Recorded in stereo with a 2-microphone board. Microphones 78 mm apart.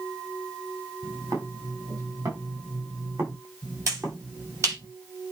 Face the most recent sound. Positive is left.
turn(degrees=-40)  # may be behind; listen again after turning